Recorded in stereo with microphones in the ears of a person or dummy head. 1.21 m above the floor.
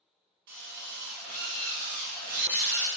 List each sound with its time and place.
0.5 s a drill: 50° right (ahead or behind), 0.7 m